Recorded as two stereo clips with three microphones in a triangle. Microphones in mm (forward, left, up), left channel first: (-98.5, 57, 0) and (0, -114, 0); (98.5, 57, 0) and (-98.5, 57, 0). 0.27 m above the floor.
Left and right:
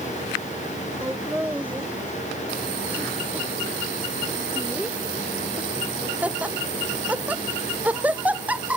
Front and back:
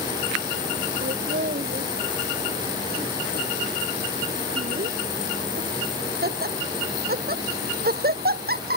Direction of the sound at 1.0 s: 145° right.